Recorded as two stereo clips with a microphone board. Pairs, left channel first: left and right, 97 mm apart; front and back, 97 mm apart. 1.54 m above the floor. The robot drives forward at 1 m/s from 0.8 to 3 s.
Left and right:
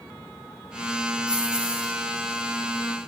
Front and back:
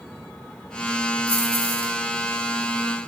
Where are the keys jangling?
170° right, 4.5 m.